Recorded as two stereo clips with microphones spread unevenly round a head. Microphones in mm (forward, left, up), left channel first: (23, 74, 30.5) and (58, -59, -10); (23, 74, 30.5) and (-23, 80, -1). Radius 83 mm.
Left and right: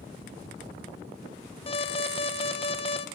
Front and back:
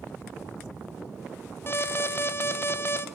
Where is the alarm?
55° left, 1.5 m.